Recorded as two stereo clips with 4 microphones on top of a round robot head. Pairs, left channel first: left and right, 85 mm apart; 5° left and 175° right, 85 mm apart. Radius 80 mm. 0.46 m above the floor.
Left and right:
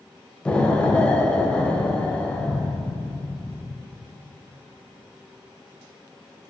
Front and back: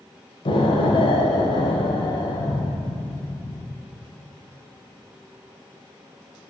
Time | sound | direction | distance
0.5 | an explosion | 15° left | 1.3 m